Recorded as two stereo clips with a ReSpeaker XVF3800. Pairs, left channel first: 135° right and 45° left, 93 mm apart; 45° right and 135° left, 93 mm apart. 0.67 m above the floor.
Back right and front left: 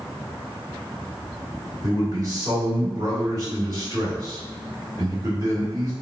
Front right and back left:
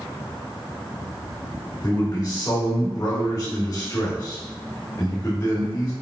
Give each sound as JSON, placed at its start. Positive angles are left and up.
{"t": 1.8, "sound": "a man speaking", "azimuth_deg": 10, "distance_m": 1.7}